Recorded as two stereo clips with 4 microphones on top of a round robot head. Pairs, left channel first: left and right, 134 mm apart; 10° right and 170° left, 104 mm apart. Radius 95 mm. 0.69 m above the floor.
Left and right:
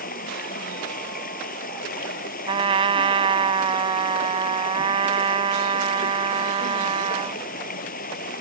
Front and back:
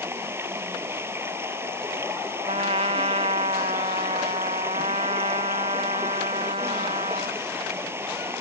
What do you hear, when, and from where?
0.0 s running water: 100° left
2.5 s a trumpet: 140° right